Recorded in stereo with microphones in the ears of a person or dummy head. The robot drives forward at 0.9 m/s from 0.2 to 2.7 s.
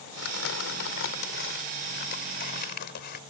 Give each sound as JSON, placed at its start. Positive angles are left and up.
{"t": 0.2, "sound": "crumpling", "side_deg": 75}